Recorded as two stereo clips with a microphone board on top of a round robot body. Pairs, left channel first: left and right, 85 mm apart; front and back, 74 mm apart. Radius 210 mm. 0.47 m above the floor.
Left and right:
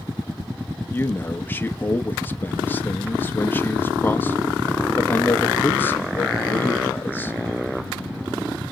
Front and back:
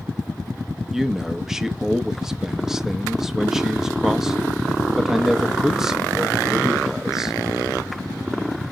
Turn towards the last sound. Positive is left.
turn(degrees=105)